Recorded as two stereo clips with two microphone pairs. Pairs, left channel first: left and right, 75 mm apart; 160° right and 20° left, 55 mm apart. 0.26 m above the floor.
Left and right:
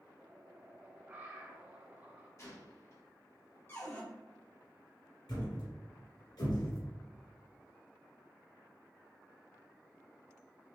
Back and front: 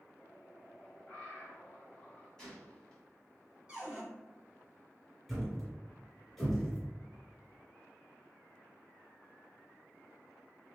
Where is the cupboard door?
80° left, 1.5 m.